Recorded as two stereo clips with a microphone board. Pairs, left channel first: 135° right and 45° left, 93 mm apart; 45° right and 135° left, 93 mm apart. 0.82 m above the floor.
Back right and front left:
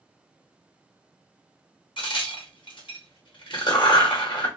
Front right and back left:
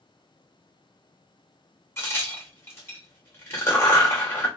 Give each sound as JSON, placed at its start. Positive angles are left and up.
{"t": 2.0, "sound": "a crack", "azimuth_deg": -105, "distance_m": 0.8}